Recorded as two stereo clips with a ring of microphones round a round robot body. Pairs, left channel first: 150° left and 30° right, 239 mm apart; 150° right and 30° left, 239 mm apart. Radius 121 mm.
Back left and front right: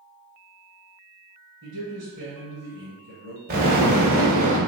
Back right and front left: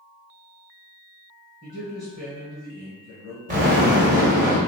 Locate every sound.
1.6 s a man speaking: 40° right, 1.4 m
3.5 s an explosion: straight ahead, 1.8 m